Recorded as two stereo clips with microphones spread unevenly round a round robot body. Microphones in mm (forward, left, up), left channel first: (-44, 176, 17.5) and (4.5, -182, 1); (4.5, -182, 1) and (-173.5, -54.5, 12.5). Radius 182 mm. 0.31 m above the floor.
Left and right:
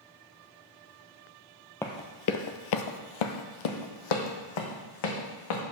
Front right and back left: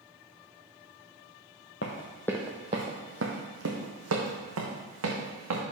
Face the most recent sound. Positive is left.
turn(degrees=120)